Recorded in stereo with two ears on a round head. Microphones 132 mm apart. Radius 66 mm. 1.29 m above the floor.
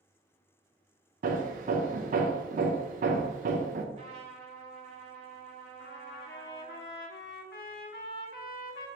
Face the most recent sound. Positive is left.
turn(degrees=70)  # may be behind; listen again after turning